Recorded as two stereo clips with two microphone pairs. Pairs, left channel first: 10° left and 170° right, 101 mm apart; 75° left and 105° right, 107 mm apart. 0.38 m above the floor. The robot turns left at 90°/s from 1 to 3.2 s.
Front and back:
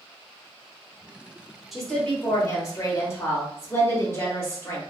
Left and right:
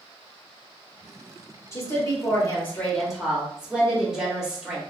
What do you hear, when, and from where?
1.7 s a woman speaking: 105° left, 0.9 m; by 4.8 s 30° right, 0.9 m